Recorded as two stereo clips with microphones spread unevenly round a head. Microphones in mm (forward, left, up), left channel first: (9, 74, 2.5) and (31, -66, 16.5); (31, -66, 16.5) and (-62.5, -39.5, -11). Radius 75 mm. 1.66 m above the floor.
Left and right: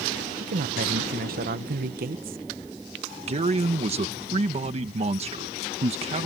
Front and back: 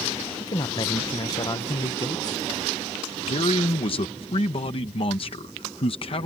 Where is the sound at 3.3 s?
35° right.